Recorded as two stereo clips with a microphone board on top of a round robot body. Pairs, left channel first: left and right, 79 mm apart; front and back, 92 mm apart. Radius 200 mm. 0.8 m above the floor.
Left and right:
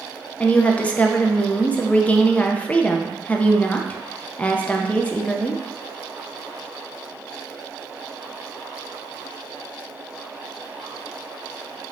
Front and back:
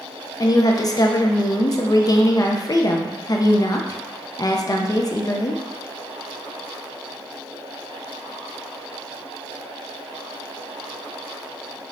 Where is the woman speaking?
20° left, 0.6 m.